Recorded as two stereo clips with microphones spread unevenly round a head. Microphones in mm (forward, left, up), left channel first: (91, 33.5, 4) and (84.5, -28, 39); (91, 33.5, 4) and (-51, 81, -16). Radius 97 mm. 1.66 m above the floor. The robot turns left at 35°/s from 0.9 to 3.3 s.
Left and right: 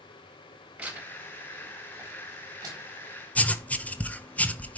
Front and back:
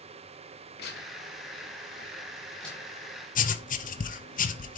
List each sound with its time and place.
0.8 s tearing paper: 40° right, 3.5 m; by 3.1 s 120° right, 3.5 m
3.4 s writing: 15° left, 0.9 m